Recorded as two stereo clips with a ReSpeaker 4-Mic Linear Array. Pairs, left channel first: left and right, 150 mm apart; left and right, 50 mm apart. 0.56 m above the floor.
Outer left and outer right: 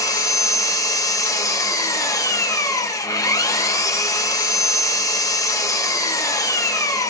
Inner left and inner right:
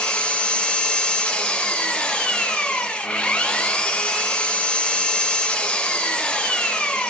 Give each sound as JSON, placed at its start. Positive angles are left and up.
{"t": 0.0, "sound": "an engine running", "side_deg": 20, "distance_m": 0.8}